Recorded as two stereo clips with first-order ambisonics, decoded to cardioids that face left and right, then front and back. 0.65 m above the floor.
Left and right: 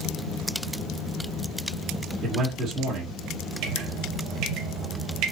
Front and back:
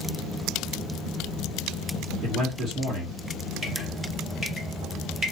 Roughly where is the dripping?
Right.